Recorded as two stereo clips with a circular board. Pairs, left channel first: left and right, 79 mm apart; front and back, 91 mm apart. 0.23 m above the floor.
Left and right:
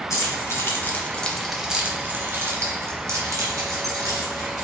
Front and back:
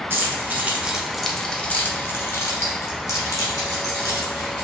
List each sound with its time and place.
0.1 s keys jangling: 125° left, 1.2 m; by 4.7 s 50° right, 2.5 m